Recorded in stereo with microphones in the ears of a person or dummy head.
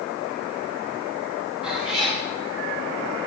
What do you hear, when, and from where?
1.6 s a cat meowing: centre (ahead or behind), 1.9 m